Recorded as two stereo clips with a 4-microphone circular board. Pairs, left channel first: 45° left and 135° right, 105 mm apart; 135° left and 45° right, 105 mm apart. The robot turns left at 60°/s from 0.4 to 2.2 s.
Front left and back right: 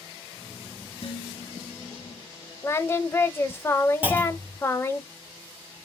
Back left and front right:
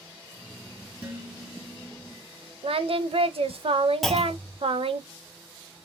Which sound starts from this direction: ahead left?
Dishes clattering, at 1.0 s.